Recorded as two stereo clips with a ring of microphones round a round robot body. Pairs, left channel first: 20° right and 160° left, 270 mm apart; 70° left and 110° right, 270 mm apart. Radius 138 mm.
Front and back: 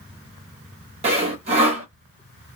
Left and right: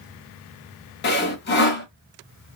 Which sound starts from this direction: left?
Sawing, at 1.0 s.